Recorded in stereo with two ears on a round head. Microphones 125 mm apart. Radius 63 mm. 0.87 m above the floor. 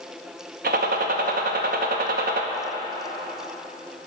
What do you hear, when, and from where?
0.6 s a gunshot: 70° right (ahead or behind), 0.7 m